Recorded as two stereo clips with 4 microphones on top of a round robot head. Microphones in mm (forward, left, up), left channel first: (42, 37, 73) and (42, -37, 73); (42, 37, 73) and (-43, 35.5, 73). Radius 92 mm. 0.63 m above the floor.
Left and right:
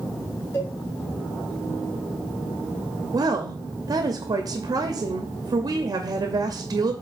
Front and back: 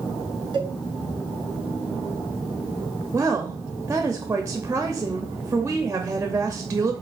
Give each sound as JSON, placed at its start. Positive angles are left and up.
{"t": 0.5, "sound": "a cowbell", "azimuth_deg": 145, "distance_m": 2.5}
{"t": 3.1, "sound": "a woman speaking", "azimuth_deg": -115, "distance_m": 0.9}